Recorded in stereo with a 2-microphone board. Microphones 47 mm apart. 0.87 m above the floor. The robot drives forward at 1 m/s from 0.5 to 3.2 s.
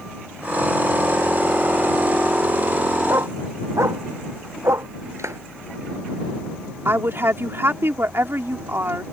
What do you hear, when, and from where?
3.1 s a dog barking: 80° right
5.2 s a clap: 90° right
6.8 s a woman speaking: 55° right (ahead or behind)